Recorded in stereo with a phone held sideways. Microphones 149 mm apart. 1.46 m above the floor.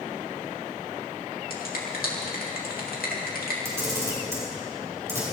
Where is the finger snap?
80° left, 3 m.